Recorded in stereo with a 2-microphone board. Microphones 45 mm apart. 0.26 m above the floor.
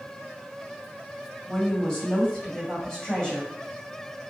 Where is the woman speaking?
15° left (ahead or behind), 1.6 m.